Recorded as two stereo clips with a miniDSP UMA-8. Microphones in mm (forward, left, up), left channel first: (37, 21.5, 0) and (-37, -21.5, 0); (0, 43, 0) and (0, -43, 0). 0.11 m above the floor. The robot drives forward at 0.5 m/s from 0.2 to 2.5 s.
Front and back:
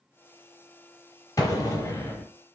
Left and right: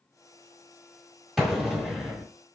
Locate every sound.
1.4 s an explosion: 5° right, 1.4 m; by 2.3 s 10° right, 1.1 m